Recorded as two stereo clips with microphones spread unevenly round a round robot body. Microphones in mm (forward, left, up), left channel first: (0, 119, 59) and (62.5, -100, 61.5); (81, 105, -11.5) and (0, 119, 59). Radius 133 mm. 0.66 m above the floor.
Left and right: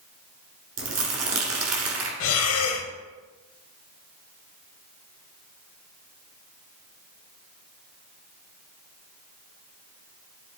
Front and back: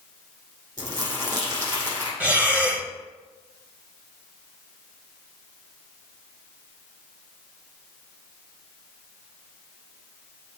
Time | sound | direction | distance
0.8 | crumpling | 110° right | 1.4 m
2.2 | breathing | 135° left | 0.7 m